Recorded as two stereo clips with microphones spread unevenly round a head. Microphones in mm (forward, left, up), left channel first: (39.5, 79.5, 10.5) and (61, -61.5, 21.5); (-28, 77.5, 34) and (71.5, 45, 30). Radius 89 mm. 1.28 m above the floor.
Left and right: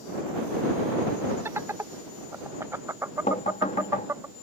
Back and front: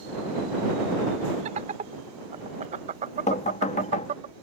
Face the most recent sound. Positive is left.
turn(degrees=160)